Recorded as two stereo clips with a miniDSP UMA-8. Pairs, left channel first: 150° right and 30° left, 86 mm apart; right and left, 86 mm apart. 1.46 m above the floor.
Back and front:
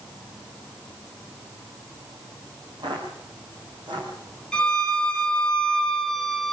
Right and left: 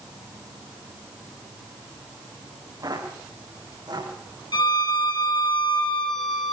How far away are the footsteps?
About 7.5 m.